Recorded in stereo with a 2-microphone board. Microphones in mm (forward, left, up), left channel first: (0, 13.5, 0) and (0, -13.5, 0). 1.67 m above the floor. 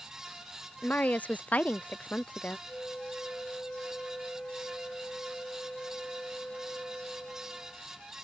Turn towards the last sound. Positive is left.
turn(degrees=55)  # may be behind; listen again after turning